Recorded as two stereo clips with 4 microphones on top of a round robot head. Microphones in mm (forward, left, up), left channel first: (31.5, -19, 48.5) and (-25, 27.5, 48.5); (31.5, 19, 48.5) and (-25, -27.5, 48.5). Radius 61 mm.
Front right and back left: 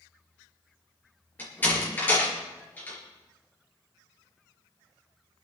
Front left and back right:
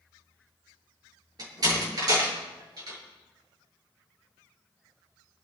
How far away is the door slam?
About 7 m.